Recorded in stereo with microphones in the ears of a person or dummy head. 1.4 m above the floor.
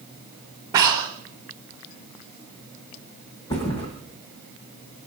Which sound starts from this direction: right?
Breathing, at 0.7 s.